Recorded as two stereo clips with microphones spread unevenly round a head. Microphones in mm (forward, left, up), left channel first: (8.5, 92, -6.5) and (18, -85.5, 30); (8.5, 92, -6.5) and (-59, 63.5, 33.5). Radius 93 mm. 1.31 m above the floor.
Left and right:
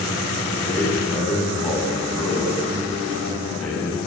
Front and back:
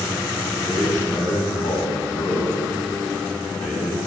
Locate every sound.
0.5 s a man speaking: 10° left, 9.5 m